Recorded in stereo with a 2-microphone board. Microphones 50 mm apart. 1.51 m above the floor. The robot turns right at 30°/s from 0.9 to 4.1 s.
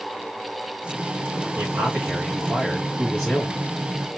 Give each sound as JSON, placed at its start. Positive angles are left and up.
{"t": 1.6, "sound": "a man speaking", "azimuth_deg": -40, "distance_m": 2.5}